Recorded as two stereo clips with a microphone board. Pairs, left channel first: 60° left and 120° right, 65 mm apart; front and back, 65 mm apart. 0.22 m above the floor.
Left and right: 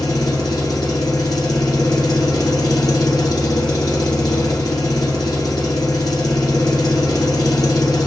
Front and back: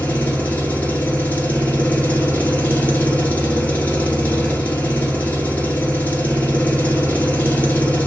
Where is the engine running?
65° left, 1.1 m.